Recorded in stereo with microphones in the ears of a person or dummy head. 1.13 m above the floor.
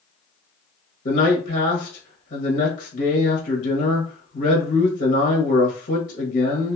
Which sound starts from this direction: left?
A man speaking, at 1.1 s.